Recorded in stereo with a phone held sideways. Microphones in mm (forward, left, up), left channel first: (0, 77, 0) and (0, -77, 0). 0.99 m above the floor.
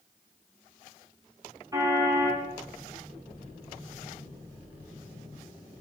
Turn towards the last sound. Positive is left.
turn(degrees=-20)  # may be behind; listen again after turning